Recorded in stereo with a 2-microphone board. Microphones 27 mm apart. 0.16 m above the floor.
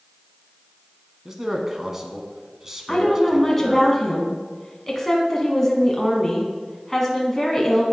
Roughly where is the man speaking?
Centre.